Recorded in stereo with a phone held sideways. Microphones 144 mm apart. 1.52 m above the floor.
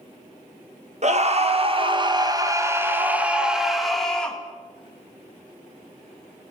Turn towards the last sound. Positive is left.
turn(degrees=5)  # may be behind; listen again after turning